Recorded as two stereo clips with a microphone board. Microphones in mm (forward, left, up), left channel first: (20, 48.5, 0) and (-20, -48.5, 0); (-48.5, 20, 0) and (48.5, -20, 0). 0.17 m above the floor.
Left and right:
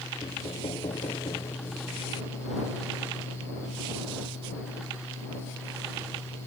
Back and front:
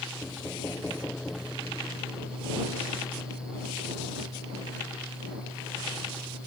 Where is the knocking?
85° left.